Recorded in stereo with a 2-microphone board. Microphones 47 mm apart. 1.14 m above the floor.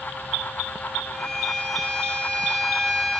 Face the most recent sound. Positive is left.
turn(degrees=5)  # may be behind; listen again after turning